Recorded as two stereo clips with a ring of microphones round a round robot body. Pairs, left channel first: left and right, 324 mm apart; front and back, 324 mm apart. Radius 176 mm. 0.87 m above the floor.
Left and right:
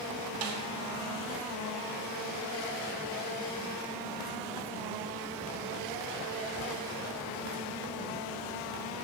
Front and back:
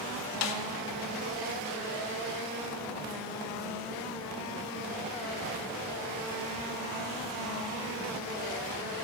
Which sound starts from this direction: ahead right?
A snare drum, at 0.4 s.